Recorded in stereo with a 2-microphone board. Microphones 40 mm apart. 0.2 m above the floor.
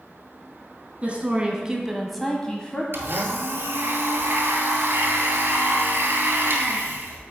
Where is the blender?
65° right (ahead or behind), 1.2 m.